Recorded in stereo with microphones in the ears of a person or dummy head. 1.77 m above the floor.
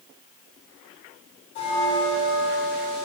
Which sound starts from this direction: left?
A bell, at 1.6 s.